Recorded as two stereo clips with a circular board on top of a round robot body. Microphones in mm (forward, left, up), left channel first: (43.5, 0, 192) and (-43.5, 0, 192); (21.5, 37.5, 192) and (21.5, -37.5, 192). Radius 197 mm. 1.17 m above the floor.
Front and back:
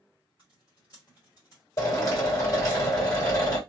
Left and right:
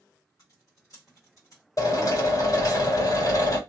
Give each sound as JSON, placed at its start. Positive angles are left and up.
{"t": 0.4, "sound": "typing on a keyboard", "azimuth_deg": 50, "distance_m": 1.1}
{"t": 1.8, "sound": "a drill", "azimuth_deg": 50, "distance_m": 1.8}